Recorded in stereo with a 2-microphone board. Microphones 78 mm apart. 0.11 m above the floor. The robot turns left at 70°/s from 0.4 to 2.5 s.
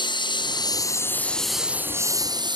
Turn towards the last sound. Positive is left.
turn(degrees=-70)  # may be behind; listen again after turning